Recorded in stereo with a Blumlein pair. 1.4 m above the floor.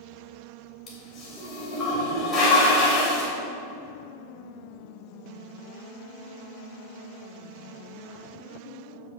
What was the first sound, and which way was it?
A toilet flushing, 25° left.